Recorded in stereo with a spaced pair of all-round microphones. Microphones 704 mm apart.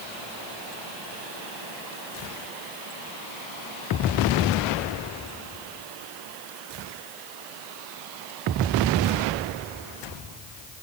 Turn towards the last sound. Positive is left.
No sound to turn to.